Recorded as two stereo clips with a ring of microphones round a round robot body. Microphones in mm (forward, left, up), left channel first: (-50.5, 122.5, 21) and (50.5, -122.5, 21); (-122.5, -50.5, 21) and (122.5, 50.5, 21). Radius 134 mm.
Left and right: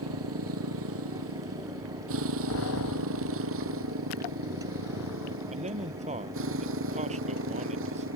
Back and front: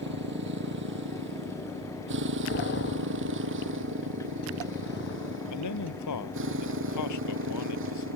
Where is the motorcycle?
30° right; by 8.2 s 25° right.